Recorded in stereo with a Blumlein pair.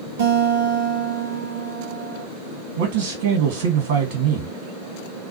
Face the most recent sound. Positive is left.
turn(degrees=-55)